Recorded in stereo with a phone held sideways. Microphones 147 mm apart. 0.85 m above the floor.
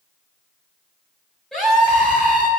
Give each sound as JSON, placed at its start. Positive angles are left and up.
{"t": 1.5, "sound": "a scream", "side_deg": 5, "distance_m": 5.0}